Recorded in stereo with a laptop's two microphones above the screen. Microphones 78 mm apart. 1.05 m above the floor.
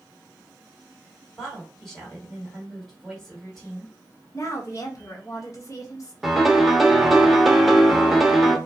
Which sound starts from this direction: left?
A woman speaking, at 4.3 s.